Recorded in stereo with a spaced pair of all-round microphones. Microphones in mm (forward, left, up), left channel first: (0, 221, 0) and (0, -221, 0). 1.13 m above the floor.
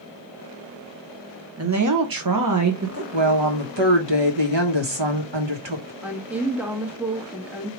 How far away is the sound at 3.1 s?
About 1.2 m.